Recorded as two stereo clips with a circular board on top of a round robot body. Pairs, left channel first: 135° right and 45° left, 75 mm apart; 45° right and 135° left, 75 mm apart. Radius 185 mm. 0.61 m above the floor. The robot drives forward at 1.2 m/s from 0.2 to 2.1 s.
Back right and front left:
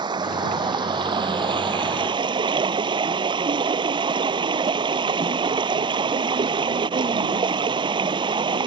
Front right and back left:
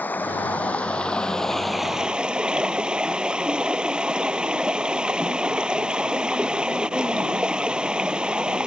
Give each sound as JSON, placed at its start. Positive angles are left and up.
{"t": 0.0, "sound": "running water", "azimuth_deg": 25}